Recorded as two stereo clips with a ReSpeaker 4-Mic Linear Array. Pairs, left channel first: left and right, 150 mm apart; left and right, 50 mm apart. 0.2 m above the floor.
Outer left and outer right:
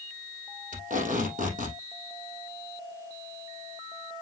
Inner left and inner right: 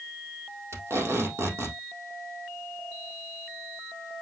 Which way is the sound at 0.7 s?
60° right (ahead or behind).